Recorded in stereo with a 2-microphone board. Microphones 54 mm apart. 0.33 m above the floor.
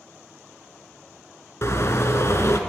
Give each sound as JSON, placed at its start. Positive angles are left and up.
{"t": 1.6, "sound": "a car horn", "side_deg": 50, "distance_m": 2.5}